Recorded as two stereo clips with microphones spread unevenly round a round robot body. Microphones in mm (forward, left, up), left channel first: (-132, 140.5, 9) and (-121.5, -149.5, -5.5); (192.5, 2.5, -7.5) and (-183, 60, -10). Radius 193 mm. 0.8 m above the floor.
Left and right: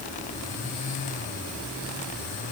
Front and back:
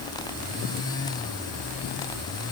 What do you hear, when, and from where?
Only background noise.